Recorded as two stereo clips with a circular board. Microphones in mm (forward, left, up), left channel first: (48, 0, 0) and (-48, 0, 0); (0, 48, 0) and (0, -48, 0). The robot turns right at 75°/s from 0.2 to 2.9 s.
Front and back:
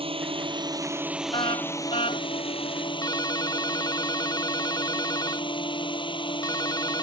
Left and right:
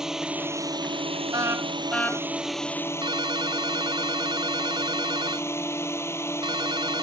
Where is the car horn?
40° right; by 2.2 s 30° left.